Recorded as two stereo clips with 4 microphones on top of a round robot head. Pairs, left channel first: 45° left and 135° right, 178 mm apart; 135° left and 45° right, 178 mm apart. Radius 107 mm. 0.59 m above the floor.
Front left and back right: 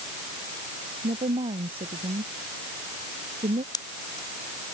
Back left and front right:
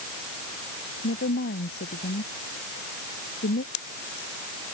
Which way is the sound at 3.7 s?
115° left.